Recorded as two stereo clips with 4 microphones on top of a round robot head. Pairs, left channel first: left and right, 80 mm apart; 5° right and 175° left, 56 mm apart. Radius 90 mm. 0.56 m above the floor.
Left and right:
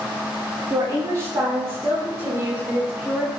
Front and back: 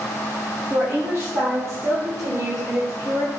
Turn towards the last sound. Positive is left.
turn(degrees=-155)